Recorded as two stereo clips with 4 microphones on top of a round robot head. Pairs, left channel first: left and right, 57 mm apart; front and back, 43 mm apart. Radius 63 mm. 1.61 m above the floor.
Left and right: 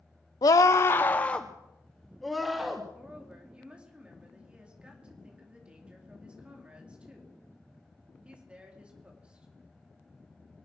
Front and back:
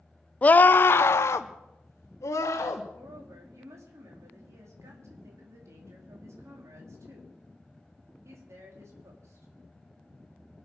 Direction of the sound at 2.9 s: 160° right.